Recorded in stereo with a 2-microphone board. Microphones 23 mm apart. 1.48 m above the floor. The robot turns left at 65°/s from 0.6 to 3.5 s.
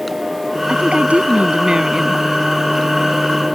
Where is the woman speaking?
65° right; by 2.2 s 165° right.